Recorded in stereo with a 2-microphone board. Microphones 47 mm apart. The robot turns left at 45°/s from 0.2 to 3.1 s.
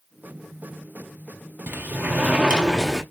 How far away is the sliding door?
About 1.1 m.